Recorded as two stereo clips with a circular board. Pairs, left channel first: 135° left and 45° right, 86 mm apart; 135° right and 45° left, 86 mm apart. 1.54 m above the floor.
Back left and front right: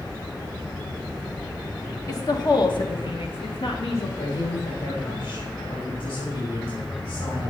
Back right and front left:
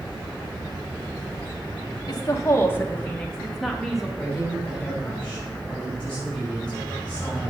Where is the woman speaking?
175° right, 1.4 m; by 4.1 s 130° left, 2.5 m.